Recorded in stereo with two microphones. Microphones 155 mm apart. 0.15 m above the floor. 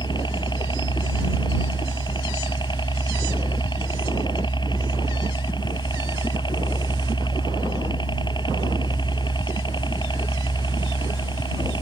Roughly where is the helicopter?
Left.